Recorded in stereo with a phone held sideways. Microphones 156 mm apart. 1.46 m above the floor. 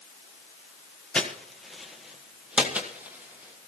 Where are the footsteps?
5° left (ahead or behind), 1.5 m; by 3.7 s 15° right (ahead or behind), 2.5 m.